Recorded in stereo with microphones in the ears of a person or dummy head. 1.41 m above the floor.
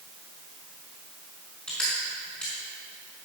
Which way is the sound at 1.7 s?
5° left (ahead or behind).